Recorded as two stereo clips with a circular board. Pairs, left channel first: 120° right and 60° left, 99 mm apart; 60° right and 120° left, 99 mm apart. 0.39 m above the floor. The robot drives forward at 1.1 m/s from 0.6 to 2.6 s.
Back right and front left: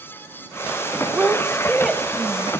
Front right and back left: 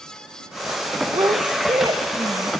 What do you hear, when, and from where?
1.1 s a woman speaking: 130° left, 1.5 m; by 2.5 s 160° left, 2.5 m